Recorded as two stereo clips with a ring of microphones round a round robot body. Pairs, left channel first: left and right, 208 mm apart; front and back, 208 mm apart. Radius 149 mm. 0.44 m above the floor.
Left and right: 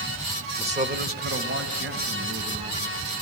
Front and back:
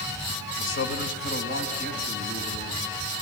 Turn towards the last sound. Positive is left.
turn(degrees=-65)